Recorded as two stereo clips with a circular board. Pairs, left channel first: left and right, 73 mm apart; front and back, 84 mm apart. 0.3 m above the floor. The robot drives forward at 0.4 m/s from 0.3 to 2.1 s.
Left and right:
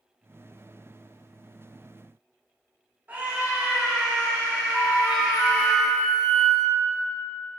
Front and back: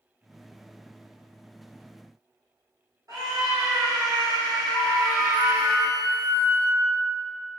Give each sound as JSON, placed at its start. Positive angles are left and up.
{"t": 3.1, "sound": "a scream", "azimuth_deg": -145, "distance_m": 1.9}
{"t": 4.7, "sound": "a flute", "azimuth_deg": 175, "distance_m": 2.0}